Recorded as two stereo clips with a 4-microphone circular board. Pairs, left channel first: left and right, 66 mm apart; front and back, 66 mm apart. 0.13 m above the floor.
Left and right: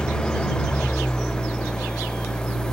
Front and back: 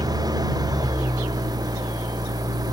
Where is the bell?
I don't hear a bell.